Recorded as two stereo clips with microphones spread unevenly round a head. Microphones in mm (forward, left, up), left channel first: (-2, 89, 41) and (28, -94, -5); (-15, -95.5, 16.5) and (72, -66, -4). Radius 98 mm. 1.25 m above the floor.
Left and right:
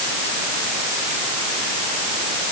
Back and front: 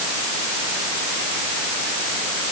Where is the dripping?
I don't hear dripping.